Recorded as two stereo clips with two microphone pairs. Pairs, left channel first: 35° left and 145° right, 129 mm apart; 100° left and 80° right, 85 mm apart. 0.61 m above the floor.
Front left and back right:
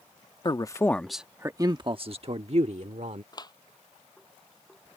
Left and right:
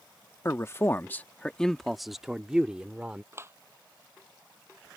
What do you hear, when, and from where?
0.5 s a man speaking: 60° left; by 3.2 s 155° right
3.3 s a clap: 20° right